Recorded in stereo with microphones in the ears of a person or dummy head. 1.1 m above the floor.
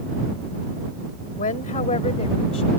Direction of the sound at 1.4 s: 40° left (ahead or behind).